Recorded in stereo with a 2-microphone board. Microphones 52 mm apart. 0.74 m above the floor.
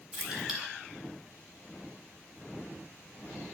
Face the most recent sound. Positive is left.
turn(degrees=-10)  # may be behind; listen again after turning